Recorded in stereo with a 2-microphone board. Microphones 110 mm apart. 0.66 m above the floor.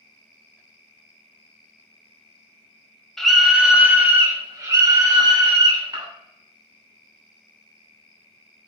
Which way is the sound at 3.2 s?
5° left (ahead or behind).